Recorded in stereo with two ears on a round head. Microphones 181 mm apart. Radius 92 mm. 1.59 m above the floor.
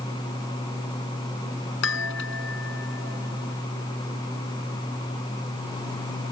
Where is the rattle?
No rattle in this recording.